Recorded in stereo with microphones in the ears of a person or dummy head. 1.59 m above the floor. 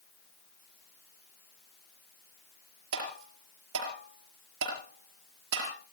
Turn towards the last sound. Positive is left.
turn(degrees=-75)  # may be behind; listen again after turning